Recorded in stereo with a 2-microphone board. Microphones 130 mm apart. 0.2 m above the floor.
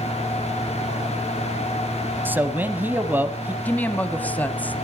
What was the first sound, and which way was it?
A man speaking, 15° right (ahead or behind).